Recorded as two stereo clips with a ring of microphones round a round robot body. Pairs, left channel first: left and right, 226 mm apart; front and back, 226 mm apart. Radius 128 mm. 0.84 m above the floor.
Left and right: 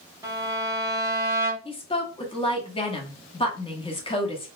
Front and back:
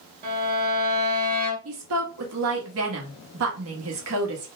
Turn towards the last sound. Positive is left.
turn(degrees=155)